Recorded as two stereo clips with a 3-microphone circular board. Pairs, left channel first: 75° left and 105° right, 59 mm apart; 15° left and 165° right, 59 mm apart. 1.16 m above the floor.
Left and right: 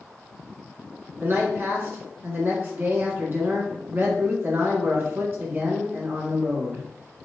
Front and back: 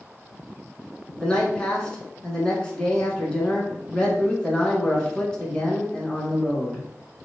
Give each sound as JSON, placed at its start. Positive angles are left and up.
{"t": 1.2, "sound": "a man speaking", "azimuth_deg": -55, "distance_m": 1.7}